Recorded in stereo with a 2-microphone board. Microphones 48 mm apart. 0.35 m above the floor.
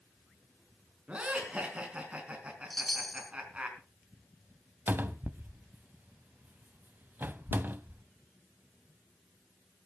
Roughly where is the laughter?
Right.